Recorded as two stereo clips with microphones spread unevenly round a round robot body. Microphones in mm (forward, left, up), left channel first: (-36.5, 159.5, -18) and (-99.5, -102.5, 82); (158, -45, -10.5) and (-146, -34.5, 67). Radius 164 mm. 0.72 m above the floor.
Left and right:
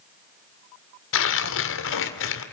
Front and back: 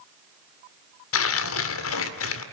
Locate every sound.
1.1 s tearing paper: 40° left, 1.9 m